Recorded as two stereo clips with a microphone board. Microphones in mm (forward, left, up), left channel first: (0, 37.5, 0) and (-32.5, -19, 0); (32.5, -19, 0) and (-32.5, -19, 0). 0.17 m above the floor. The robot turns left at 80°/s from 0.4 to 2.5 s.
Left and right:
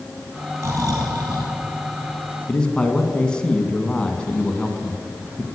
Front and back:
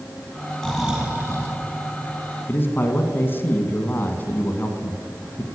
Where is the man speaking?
Straight ahead, 1.4 m.